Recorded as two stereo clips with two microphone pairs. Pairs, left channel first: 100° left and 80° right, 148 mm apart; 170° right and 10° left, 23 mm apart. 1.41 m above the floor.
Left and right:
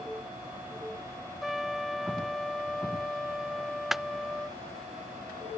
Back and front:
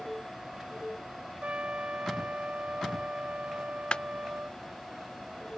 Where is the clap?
165° right.